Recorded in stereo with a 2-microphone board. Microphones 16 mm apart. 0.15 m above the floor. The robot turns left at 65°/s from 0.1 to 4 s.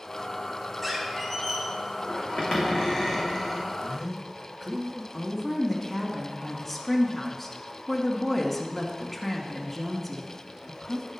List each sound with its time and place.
0.8 s a squeak: 175° right, 2.5 m; by 3.7 s straight ahead, 2.5 m
3.8 s a man speaking: 40° right (ahead or behind), 1.8 m
5.1 s a woman speaking: 10° left (ahead or behind), 1.6 m